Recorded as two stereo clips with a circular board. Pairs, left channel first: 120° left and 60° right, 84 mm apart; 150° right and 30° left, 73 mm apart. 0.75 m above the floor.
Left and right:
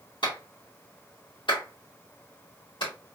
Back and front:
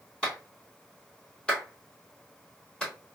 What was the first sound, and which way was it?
A clap, 130° left.